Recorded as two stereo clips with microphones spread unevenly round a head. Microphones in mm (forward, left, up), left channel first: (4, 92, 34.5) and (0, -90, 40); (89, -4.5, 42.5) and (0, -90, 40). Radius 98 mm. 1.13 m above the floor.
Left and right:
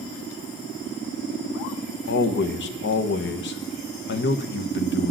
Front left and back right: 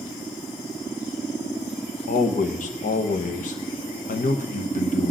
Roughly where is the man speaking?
Left.